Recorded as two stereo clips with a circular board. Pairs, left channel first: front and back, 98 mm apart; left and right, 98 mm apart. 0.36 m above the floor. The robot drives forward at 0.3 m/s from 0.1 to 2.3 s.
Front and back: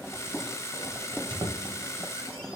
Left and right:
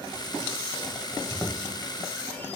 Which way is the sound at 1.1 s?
150° left.